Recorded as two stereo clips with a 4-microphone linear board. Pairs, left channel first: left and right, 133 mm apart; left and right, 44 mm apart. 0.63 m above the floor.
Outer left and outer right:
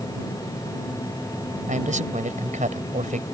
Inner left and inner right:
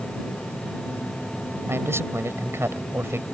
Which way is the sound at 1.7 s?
70° right (ahead or behind).